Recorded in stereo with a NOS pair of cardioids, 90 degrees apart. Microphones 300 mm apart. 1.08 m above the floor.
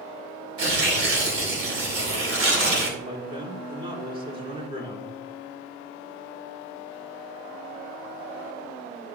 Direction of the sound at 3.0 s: 20° right.